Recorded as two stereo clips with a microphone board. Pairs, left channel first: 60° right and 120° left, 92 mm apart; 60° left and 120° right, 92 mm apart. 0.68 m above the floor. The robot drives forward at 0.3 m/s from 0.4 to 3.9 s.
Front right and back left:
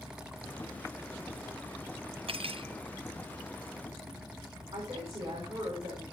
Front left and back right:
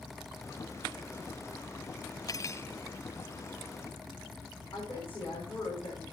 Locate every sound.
2.3 s cutlery clinking: 110° left, 0.5 m; by 2.7 s 120° left, 0.6 m
4.7 s a woman speaking: 125° left, 5 m